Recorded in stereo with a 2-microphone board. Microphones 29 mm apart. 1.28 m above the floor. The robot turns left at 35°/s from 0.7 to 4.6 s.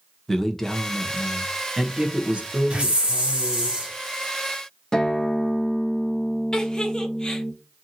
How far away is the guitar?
About 0.5 m.